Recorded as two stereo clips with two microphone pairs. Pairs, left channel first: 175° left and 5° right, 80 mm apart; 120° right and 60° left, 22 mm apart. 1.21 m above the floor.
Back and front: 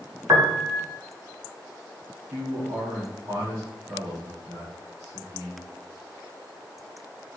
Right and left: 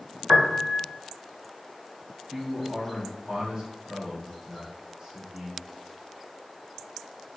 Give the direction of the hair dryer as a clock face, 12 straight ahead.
No hair dryer in this recording.